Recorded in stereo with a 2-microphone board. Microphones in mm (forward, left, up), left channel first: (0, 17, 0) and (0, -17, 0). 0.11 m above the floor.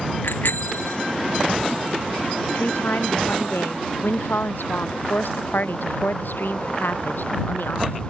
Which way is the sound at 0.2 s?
85° left.